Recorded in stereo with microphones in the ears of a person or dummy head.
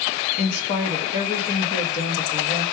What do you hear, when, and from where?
0.4 s a woman speaking: 40° left (ahead or behind), 0.9 m